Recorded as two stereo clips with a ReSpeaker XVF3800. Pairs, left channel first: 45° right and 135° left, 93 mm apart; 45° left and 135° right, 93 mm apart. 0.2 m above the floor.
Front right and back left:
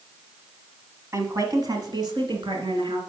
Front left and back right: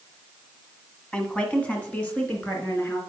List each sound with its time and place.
1.1 s a woman speaking: 115° left, 1.3 m